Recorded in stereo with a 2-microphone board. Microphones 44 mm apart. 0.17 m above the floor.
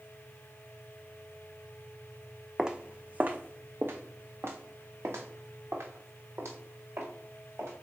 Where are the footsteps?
15° right (ahead or behind), 0.7 m; by 7.7 s 90° right, 3 m.